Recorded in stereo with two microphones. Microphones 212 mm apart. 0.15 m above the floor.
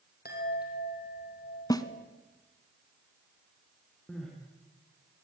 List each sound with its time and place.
0.2 s a chime: 50° left (ahead or behind), 4 m
1.7 s a snare drum: 15° left (ahead or behind), 0.9 m
4.1 s crying: 5° left (ahead or behind), 4.5 m